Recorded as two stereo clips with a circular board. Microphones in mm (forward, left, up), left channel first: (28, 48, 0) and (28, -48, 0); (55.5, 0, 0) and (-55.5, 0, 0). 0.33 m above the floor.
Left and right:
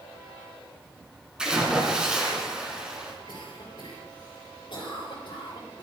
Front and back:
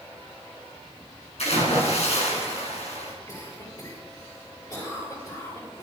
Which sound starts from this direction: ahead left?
A cough, at 3.3 s.